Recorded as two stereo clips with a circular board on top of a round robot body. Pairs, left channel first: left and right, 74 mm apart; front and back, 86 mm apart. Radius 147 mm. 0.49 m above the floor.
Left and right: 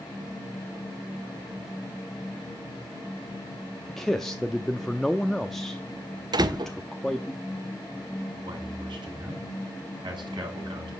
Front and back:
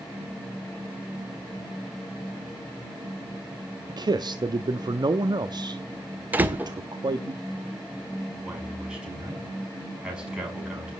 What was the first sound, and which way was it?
A man speaking, 175° left.